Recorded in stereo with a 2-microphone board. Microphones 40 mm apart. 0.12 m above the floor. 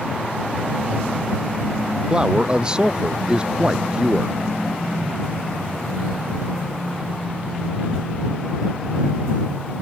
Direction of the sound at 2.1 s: 20° right (ahead or behind).